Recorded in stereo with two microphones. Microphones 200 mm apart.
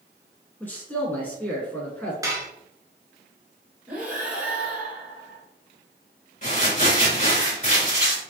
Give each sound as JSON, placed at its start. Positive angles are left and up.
{"t": 0.6, "sound": "a man speaking", "side_deg": 10, "distance_m": 1.2}
{"t": 2.2, "sound": "dishes clattering", "side_deg": -20, "distance_m": 0.9}
{"t": 3.9, "sound": "breathing", "side_deg": -10, "distance_m": 1.4}
{"t": 6.4, "sound": "crumpling", "side_deg": 40, "distance_m": 2.0}